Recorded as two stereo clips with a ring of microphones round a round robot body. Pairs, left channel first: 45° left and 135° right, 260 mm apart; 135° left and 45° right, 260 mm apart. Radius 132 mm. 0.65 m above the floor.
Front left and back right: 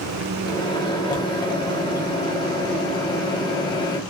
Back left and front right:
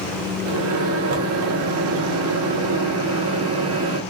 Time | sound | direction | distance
0.5 | a microwave | 25° right | 1.1 m